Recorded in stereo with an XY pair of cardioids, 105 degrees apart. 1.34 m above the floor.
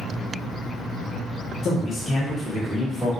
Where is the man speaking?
55° left, 0.7 m; by 3.1 s 10° left, 1.3 m.